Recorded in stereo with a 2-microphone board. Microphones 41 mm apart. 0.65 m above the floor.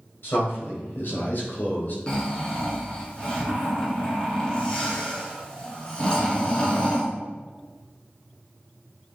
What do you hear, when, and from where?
0.2 s a man speaking: 60° left (ahead or behind), 3 m; by 2.0 s 45° left (ahead or behind), 2.0 m
2.1 s snoring: 25° left (ahead or behind), 1.7 m